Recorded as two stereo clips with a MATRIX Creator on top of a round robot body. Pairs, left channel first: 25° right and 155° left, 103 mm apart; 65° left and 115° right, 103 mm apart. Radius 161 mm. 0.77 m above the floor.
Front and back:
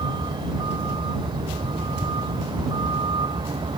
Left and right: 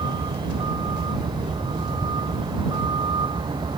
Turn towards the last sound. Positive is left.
turn(degrees=-160)